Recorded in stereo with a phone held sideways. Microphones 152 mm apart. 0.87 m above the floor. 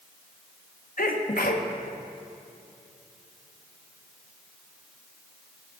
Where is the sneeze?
60° left (ahead or behind), 1.4 m.